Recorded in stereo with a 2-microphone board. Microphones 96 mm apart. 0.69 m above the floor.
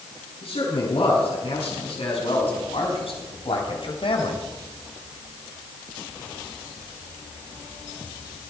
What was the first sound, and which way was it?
A man speaking, 80° left.